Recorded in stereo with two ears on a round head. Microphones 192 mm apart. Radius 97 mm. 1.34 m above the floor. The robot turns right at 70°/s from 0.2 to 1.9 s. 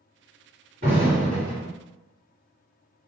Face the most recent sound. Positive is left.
turn(degrees=45)